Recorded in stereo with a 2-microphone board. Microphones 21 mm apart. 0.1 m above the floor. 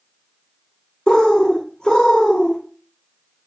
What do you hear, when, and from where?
1.1 s a bird: 35° left (ahead or behind), 0.6 m